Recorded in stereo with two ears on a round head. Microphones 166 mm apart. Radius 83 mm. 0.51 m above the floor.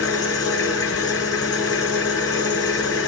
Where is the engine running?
20° left (ahead or behind), 2.5 m.